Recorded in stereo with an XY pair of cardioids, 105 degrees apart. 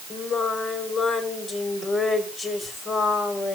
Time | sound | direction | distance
0.1 | singing | 50° left | 3.5 m